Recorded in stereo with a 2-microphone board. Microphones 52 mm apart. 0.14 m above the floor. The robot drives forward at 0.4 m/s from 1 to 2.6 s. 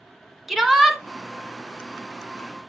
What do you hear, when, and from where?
0.5 s a shout: 5° right (ahead or behind), 1.4 m